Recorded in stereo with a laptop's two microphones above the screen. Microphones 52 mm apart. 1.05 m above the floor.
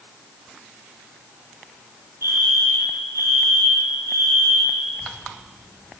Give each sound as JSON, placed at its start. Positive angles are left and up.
{"t": 2.2, "sound": "a fire alarm", "side_deg": -70, "distance_m": 7.5}
{"t": 4.9, "sound": "a child speaking", "side_deg": -35, "distance_m": 9.0}